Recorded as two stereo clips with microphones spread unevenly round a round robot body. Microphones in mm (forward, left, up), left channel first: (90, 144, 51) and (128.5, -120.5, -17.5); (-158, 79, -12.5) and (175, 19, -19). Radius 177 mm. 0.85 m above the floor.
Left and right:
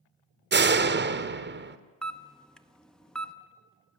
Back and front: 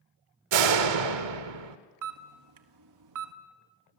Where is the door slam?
30° right, 1.6 m.